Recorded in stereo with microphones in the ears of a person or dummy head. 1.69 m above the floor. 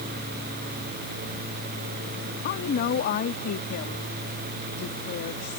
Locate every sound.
2.4 s a woman speaking: 45° left (ahead or behind)